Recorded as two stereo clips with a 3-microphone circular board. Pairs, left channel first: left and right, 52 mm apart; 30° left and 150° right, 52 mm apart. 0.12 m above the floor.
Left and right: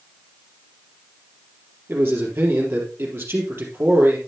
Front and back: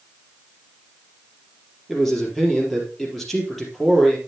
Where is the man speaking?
55° right, 3.5 m.